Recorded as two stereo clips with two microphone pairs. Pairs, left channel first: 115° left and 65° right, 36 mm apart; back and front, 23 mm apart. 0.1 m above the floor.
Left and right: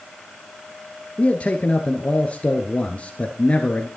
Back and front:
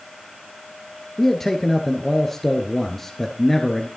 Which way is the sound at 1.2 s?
110° left.